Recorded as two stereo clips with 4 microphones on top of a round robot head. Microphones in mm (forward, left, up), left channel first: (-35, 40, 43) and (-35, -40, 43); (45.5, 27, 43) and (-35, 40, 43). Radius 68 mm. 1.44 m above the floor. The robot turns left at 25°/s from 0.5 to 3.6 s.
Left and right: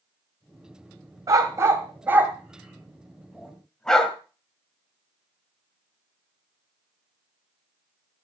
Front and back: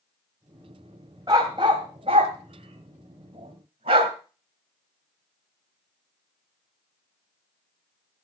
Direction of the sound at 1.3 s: 130° right.